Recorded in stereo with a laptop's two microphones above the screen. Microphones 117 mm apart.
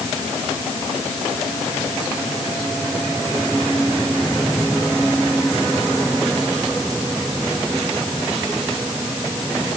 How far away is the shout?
No shout in this recording.